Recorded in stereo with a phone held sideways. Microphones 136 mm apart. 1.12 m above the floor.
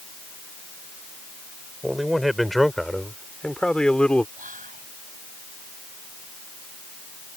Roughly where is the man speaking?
Centre.